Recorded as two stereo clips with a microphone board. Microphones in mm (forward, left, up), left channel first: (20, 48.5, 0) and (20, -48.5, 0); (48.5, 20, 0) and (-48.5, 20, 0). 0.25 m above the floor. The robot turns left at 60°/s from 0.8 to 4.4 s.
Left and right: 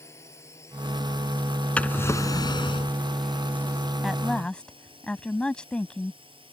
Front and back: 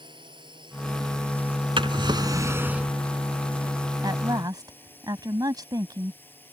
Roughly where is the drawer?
Behind.